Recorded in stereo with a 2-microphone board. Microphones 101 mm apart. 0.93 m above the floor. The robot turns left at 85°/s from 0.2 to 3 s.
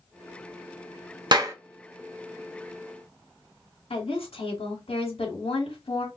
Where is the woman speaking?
65° left (ahead or behind), 2 m.